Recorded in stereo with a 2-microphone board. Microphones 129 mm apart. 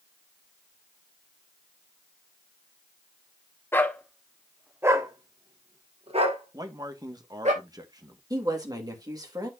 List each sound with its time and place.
3.7 s a dog barking: 20° left (ahead or behind), 1.2 m; by 7.5 s 65° right (ahead or behind), 2.5 m
6.5 s a man speaking: 30° right (ahead or behind), 1.4 m
8.3 s a woman speaking: 30° right (ahead or behind), 2.5 m